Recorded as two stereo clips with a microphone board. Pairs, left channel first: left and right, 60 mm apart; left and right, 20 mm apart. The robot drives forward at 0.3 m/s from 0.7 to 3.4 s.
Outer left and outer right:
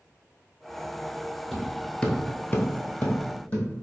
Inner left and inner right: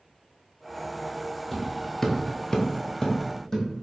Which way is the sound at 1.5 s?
Centre (ahead or behind).